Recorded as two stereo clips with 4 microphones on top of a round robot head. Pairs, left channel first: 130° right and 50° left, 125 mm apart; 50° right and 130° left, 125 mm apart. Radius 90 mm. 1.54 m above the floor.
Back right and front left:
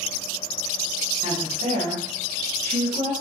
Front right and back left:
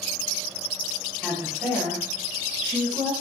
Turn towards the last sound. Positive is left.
turn(degrees=70)